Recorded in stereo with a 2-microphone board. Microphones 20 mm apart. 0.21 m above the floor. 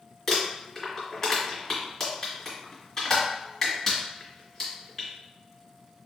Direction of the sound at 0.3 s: 15° left (ahead or behind).